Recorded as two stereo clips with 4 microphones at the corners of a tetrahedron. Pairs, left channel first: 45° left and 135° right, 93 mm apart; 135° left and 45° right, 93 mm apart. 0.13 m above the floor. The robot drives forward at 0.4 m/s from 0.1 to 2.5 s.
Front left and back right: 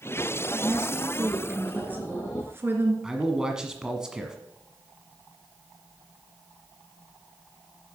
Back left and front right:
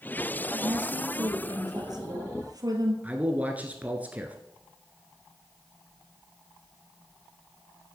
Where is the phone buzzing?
No phone buzzing in this recording.